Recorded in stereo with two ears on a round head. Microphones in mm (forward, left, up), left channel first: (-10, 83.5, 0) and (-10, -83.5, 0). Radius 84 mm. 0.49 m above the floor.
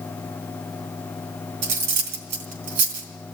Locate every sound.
1.6 s cutlery clinking: 60° right (ahead or behind), 2 m